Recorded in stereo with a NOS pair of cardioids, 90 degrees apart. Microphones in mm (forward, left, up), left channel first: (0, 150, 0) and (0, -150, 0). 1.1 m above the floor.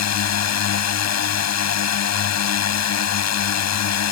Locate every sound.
0.0 s a drone: 60° left